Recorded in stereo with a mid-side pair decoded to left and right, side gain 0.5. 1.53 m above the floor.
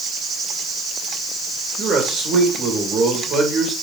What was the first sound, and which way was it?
A man speaking, 65° right.